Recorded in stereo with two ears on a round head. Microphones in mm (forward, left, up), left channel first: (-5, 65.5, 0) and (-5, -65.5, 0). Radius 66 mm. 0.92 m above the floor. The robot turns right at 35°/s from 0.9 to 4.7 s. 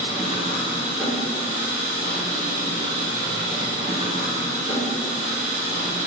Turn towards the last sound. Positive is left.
turn(degrees=-55)